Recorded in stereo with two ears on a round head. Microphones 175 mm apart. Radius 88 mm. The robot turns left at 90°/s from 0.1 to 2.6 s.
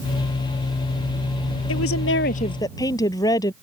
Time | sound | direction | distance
1.7 | a woman speaking | 100° left | ?